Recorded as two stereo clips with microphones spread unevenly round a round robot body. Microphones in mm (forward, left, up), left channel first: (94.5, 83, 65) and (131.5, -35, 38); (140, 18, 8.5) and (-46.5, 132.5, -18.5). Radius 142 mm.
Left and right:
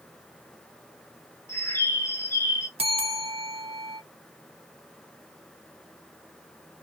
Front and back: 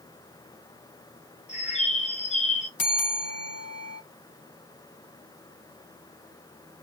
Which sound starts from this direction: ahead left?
A bird, at 1.5 s.